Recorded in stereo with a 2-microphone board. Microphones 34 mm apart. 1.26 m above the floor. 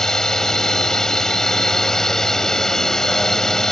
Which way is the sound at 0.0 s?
15° left (ahead or behind).